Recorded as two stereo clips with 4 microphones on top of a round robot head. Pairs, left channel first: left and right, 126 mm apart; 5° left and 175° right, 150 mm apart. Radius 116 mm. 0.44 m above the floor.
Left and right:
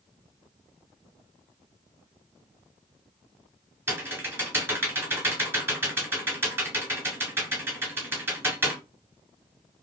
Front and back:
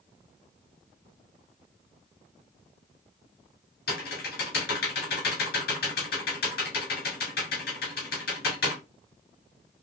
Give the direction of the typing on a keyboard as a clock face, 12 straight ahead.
1 o'clock.